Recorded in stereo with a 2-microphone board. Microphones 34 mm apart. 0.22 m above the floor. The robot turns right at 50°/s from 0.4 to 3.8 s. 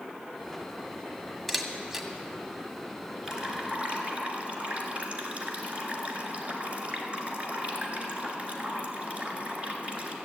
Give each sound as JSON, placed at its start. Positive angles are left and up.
{"t": 1.5, "sound": "a camera shutter", "side_deg": 5, "distance_m": 1.5}
{"t": 3.2, "sound": "dripping", "side_deg": -10, "distance_m": 1.8}